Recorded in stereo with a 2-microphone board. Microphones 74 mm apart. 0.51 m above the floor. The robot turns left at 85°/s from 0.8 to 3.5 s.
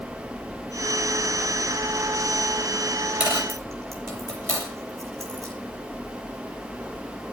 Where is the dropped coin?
15° right (ahead or behind), 6.5 m; by 5.5 s 40° right (ahead or behind), 6.5 m.